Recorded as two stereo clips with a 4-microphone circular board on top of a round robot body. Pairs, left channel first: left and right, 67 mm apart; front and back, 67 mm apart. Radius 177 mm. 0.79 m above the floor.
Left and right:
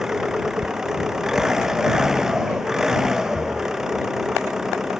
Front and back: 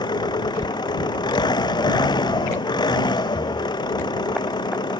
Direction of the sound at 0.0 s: 5° right.